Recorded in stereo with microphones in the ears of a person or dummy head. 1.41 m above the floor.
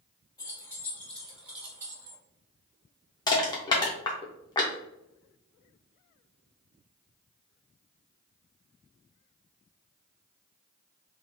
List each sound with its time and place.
0.4 s keys jangling: 20° left (ahead or behind), 1.2 m; by 2.2 s 30° right (ahead or behind), 1.0 m
3.3 s crushing: 20° left (ahead or behind), 0.6 m